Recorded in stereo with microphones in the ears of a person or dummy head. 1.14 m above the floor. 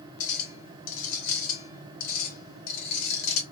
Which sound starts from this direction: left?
A clink, at 0.2 s.